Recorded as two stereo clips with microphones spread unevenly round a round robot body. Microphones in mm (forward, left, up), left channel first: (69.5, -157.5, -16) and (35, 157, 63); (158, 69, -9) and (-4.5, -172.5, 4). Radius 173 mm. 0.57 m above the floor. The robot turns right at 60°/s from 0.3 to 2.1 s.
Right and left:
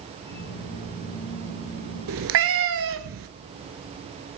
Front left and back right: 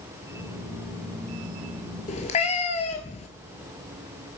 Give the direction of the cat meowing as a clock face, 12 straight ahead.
8 o'clock.